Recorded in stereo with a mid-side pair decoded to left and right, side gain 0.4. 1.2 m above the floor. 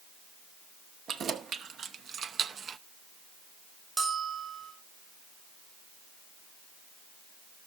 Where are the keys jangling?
65° right, 1.6 m; by 2.8 s 60° right, 0.5 m.